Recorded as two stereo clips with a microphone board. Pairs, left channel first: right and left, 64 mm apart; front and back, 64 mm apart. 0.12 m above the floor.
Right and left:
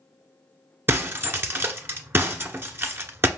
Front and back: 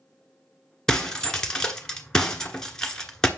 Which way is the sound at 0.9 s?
75° left.